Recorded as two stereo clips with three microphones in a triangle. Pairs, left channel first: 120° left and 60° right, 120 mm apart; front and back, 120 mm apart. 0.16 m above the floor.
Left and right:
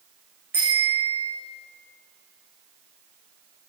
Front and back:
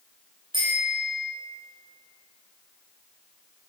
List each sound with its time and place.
0.5 s a bicycle bell: 130° right, 9 m